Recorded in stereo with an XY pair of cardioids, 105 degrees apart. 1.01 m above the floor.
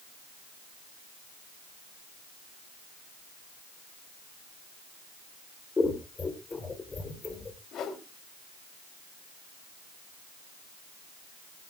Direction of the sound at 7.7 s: 70° left.